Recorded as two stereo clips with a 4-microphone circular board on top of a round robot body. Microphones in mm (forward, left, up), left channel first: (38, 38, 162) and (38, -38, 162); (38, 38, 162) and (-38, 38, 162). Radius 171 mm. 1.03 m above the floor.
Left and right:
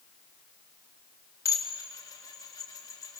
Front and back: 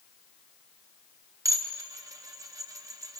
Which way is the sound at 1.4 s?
135° left.